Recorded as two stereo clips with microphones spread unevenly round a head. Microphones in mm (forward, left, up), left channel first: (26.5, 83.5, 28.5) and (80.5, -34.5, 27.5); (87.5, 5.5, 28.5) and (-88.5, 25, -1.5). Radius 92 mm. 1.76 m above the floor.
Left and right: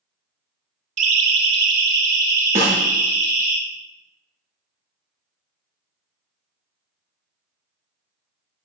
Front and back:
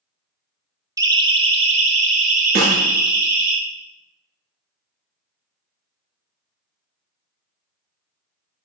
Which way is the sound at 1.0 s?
115° right.